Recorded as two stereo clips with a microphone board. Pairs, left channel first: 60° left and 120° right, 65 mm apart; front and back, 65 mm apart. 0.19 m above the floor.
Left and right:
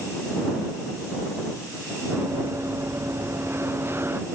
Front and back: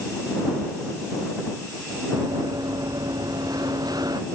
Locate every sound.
2.1 s running footsteps: 165° right; by 4.2 s 175° right